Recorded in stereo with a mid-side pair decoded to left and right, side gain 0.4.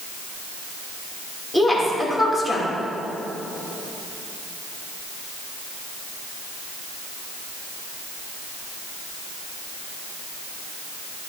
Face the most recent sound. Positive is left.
turn(degrees=20)